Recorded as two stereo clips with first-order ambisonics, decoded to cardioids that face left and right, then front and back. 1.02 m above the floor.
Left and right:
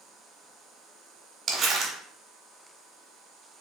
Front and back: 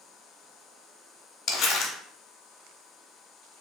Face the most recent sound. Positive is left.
turn(degrees=-35)